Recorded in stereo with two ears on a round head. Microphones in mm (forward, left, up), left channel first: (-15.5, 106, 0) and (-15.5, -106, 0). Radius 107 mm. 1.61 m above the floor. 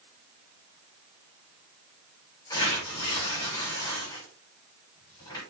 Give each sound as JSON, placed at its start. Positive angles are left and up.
{"t": 2.5, "sound": "tearing paper", "side_deg": 15, "distance_m": 5.5}